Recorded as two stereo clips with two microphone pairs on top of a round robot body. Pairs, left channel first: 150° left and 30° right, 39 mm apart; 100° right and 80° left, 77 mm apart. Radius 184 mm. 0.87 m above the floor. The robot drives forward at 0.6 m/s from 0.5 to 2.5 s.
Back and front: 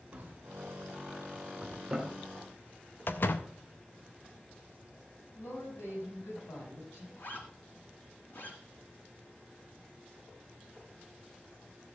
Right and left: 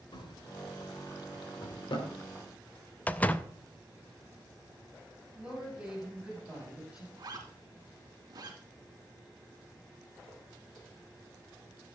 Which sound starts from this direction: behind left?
A zipper, at 7.2 s.